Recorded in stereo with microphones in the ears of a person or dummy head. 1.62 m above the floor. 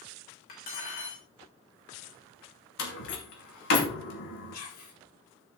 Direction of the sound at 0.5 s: 45° left (ahead or behind).